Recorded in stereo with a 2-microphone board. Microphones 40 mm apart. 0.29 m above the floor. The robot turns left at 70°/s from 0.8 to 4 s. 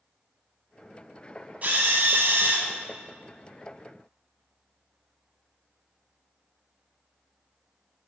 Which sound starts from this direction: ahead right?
A drill, at 1.6 s.